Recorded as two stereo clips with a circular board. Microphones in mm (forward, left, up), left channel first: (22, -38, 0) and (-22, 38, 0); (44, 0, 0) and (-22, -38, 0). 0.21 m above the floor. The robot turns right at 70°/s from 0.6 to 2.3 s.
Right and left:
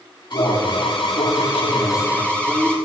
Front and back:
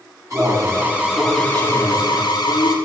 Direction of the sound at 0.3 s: 100° right.